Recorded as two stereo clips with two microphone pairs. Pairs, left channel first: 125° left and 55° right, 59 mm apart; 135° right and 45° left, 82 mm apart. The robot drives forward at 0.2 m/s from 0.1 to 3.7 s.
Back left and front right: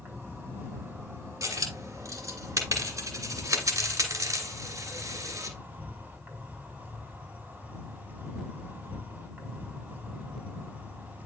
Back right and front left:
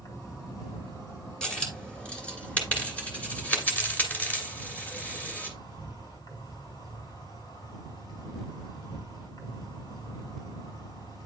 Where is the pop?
I don't hear a pop.